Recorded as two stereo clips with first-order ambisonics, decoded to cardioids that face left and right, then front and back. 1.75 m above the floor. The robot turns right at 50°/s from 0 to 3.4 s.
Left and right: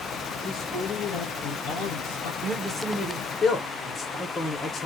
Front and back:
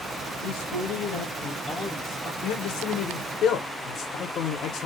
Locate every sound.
0.4 s a man speaking: 5° left, 2.5 m; by 2.3 s 100° left, 2.5 m
2.4 s a man speaking: 25° right, 0.9 m; by 4.9 s 25° left, 0.9 m